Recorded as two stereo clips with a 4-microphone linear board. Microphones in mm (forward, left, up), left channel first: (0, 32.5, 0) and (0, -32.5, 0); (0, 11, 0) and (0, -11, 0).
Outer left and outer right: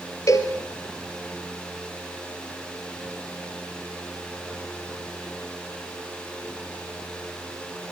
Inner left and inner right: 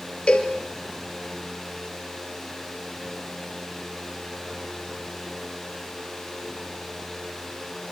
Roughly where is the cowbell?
Left.